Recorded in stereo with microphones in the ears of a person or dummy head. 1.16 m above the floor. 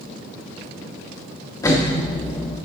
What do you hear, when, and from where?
1.6 s an explosion: 20° left (ahead or behind), 1.4 m